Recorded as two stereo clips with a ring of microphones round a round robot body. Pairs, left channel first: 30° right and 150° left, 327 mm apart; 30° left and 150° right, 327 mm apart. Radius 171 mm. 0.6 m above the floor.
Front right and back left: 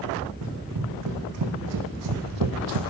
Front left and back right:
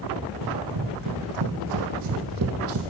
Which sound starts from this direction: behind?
Running footsteps, at 0.4 s.